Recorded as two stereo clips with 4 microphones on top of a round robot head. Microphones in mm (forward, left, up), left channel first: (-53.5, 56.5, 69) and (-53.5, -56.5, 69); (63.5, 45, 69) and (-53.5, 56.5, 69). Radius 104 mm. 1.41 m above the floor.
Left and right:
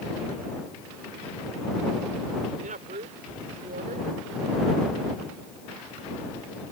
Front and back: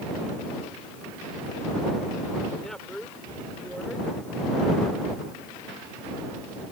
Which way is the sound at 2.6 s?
90° right.